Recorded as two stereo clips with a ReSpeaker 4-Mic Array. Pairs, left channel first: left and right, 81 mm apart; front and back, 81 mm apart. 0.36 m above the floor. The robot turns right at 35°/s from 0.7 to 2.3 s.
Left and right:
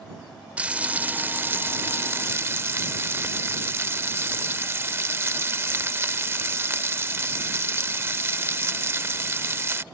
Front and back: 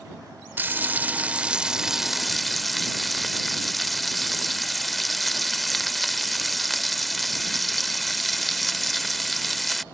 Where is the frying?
145° right; by 9.8 s 90° right.